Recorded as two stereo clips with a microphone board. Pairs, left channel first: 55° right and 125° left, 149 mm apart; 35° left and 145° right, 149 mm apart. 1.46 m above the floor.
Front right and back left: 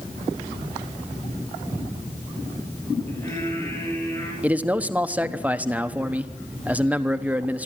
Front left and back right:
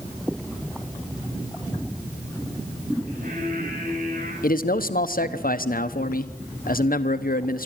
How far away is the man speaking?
About 1.1 m.